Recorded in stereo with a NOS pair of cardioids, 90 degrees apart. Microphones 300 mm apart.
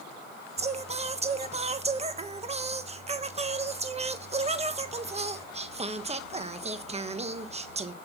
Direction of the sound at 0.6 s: 20° right.